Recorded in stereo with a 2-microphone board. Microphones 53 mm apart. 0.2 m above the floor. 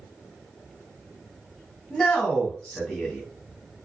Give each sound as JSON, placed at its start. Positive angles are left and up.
{"t": 1.9, "sound": "a man speaking", "side_deg": 10, "distance_m": 1.2}